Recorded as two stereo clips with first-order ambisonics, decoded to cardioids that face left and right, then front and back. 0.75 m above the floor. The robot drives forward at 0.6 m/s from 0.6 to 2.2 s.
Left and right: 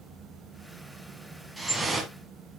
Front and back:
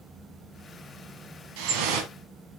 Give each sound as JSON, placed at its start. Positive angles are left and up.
{"t": 1.6, "sound": "dripping", "azimuth_deg": 180, "distance_m": 1.9}